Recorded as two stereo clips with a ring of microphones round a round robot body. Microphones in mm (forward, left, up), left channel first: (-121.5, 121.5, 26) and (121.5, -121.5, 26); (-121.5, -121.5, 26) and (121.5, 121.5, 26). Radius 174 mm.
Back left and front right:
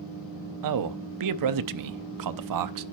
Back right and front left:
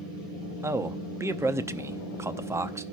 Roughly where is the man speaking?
Ahead right.